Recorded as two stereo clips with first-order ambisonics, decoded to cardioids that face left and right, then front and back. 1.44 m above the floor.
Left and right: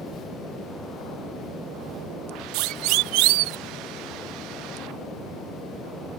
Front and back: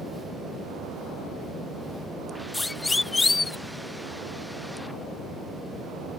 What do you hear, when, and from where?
2.5 s a siren: 80° right; by 3.6 s 75° right